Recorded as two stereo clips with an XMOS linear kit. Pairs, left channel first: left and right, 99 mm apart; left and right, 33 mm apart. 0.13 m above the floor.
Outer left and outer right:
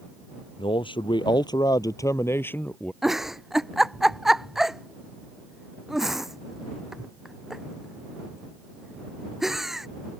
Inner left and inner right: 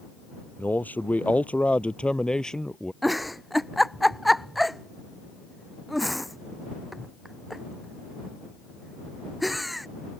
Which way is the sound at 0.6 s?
60° left (ahead or behind).